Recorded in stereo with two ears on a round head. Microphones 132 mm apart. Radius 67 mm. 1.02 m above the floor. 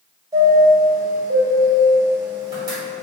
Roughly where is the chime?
Right.